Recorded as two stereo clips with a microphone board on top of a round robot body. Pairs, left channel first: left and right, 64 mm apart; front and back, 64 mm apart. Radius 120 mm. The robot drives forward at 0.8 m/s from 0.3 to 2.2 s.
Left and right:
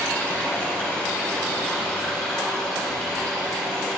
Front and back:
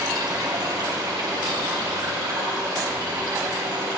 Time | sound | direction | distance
0.0 | running water | 160° left | 2 m